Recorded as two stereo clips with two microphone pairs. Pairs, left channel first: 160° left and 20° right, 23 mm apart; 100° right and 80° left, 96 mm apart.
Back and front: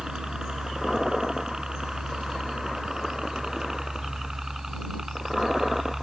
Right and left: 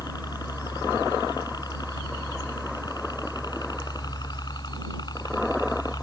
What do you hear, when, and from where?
0.0 s a helicopter: 70° right; by 6.0 s 90° right